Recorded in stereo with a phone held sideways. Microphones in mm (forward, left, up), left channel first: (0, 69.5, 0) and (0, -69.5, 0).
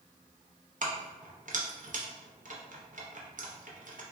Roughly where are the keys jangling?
Right.